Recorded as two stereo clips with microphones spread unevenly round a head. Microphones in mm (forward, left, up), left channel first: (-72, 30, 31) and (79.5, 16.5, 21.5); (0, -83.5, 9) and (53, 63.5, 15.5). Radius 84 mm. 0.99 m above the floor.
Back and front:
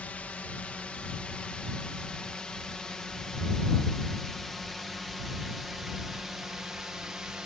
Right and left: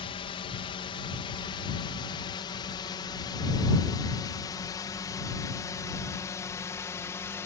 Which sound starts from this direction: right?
A drone, at 0.0 s.